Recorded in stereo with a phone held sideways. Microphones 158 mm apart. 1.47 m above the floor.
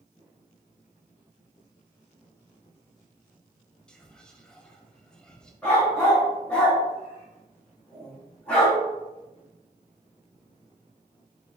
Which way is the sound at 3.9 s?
5° left (ahead or behind).